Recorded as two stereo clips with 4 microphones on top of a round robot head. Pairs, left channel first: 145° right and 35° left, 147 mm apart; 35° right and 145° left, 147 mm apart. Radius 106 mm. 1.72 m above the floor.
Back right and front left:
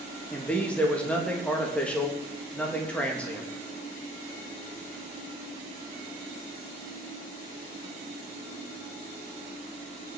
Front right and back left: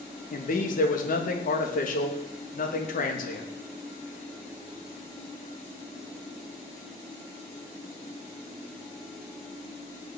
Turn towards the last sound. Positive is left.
turn(degrees=-65)